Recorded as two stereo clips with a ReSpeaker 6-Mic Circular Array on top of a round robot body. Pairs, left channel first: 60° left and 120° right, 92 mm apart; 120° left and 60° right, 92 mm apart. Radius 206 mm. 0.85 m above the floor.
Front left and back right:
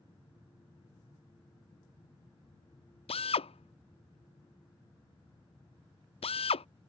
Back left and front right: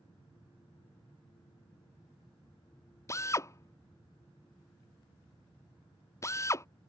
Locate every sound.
3.1 s a drill: 60° left